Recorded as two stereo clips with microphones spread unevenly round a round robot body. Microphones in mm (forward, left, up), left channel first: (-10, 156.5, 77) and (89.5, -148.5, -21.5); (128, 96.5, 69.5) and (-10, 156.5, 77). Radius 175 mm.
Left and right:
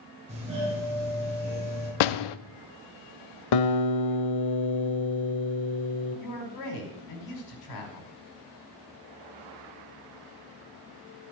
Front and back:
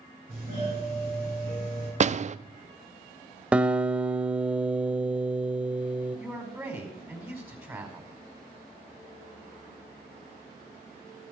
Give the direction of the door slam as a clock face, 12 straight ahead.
8 o'clock.